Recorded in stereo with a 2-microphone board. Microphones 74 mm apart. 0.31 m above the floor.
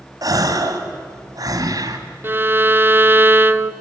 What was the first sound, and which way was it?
A gasp, 60° right (ahead or behind).